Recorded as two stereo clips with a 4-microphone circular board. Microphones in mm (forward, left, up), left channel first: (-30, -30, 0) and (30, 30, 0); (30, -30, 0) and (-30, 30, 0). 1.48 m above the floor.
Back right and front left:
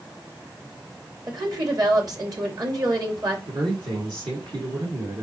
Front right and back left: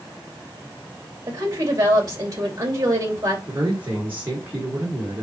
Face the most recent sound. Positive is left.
turn(degrees=70)